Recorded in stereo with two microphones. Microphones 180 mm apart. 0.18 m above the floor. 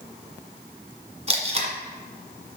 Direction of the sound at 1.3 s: 35° right (ahead or behind).